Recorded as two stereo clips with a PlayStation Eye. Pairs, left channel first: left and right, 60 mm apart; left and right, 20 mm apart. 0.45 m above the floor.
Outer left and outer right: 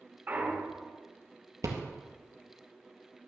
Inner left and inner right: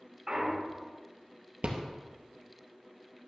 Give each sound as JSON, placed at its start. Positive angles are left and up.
{"t": 0.3, "sound": "a clunk", "side_deg": -35, "distance_m": 1.6}
{"t": 1.6, "sound": "a rattle", "side_deg": -80, "distance_m": 1.9}